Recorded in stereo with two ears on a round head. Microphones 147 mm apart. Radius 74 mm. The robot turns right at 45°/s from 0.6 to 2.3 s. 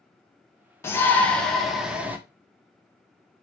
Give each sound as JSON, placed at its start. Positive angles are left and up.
{"t": 0.8, "sound": "a shout", "side_deg": 15, "distance_m": 0.7}